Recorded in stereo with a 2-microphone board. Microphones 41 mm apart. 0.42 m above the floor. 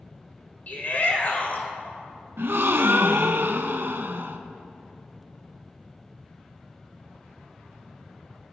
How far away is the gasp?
About 0.7 m.